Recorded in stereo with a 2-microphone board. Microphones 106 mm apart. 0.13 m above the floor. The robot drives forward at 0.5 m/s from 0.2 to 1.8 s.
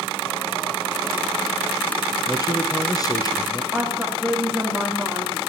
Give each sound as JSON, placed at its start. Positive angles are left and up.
{"t": 2.3, "sound": "a man speaking", "side_deg": 35, "distance_m": 2.0}
{"t": 3.7, "sound": "a woman speaking", "side_deg": -5, "distance_m": 7.5}